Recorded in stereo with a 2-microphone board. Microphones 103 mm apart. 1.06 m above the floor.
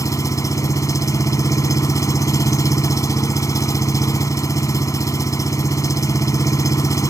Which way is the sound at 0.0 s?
30° left (ahead or behind).